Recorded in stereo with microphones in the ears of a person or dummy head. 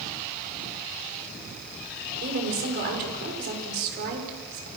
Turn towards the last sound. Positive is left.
turn(degrees=-50)  # may be behind; listen again after turning